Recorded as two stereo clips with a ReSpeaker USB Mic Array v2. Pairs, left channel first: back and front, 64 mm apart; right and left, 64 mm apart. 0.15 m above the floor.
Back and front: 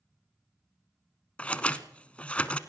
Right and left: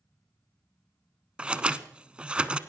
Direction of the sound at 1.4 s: 140° left.